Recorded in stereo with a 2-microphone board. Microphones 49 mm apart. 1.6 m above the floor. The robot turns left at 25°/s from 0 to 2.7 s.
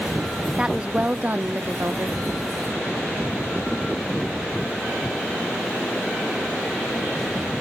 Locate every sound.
0.6 s a woman speaking: 15° right, 0.6 m; by 2.2 s 60° right, 0.6 m